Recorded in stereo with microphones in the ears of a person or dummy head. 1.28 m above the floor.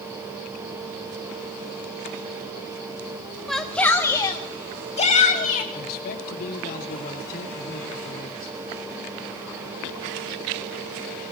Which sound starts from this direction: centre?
A shout, at 3.5 s.